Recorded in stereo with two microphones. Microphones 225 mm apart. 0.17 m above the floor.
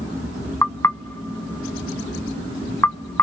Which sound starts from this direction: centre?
Knocking, at 0.6 s.